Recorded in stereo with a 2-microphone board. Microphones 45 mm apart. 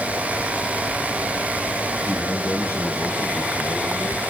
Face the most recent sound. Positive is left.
turn(degrees=55)  # may be behind; listen again after turning